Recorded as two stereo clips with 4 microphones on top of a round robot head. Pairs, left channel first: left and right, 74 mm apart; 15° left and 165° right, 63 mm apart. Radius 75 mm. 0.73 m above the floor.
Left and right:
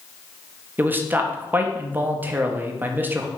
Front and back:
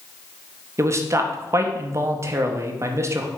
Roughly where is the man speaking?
Behind right.